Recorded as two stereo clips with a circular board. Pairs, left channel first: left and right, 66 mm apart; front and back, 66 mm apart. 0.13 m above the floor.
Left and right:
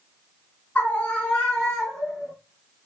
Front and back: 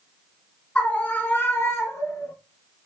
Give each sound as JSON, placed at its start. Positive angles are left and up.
{"t": 0.8, "sound": "a scream", "azimuth_deg": 50, "distance_m": 1.5}